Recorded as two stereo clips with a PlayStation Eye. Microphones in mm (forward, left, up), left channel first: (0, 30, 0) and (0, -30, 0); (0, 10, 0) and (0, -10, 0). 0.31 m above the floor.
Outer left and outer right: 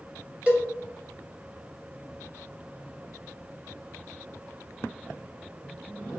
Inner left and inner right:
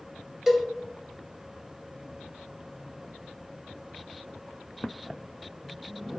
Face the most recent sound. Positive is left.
turn(degrees=-20)  # may be behind; listen again after turning